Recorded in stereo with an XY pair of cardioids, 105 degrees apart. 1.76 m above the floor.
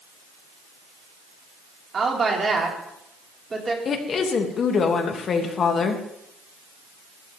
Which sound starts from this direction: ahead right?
A woman speaking, at 1.9 s.